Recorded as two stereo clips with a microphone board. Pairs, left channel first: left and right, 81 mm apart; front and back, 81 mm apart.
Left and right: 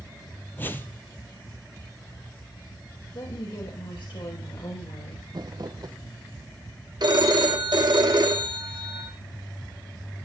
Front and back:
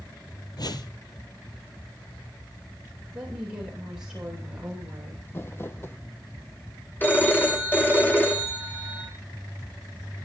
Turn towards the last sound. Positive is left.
turn(degrees=-65)